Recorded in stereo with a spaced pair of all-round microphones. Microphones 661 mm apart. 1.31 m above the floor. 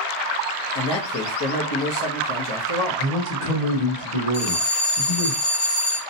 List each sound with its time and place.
0.8 s a man speaking: 40° left (ahead or behind), 0.8 m
3.0 s a man speaking: 80° left, 1.3 m
4.3 s a bell: 50° left (ahead or behind), 0.9 m